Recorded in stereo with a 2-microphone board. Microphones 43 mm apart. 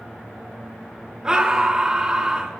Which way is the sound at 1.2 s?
20° right (ahead or behind).